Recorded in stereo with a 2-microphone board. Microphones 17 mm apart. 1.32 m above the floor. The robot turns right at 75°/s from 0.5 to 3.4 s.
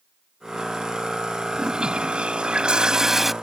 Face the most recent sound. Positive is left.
turn(degrees=0)